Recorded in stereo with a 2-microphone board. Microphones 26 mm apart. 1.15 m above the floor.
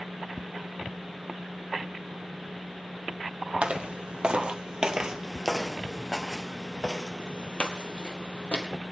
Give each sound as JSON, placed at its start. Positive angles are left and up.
{"t": 3.6, "sound": "footsteps", "side_deg": -40, "distance_m": 1.9}